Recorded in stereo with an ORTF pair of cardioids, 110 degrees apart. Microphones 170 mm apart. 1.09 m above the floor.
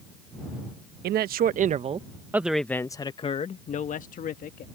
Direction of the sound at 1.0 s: 65° right.